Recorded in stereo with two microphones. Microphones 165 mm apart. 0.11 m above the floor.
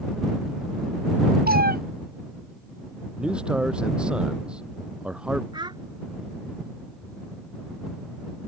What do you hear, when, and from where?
1.5 s a cat meowing: 65° right (ahead or behind)
3.2 s a man speaking: 5° right (ahead or behind)
5.5 s a child speaking: 30° right (ahead or behind)